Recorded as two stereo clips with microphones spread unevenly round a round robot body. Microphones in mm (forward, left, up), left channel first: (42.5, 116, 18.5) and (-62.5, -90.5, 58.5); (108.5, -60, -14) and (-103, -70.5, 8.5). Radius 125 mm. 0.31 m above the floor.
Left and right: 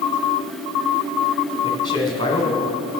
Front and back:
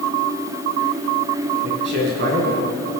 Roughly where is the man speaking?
Behind left.